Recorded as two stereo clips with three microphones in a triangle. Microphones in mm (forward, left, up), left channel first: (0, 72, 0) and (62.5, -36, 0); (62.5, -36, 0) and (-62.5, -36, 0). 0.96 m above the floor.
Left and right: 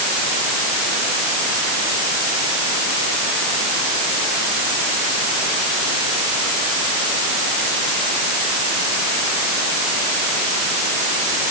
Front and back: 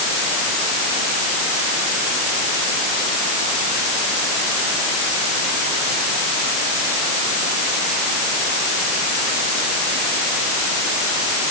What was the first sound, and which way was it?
Only background noise.